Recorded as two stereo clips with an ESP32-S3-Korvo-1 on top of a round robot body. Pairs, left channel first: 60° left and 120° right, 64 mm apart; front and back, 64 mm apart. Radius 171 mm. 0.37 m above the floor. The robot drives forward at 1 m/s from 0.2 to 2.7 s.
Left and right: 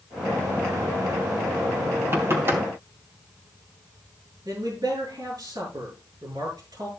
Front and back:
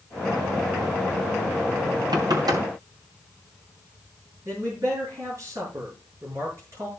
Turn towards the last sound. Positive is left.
turn(degrees=-140)